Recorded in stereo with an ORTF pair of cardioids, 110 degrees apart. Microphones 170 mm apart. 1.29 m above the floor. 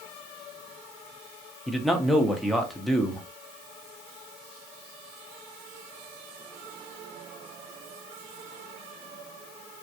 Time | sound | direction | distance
1.7 | a man speaking | straight ahead | 0.7 m